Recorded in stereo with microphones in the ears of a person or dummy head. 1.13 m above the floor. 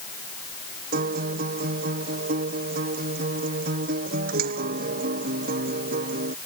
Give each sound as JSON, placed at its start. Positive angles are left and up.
{"t": 0.9, "sound": "a guitar", "side_deg": -50}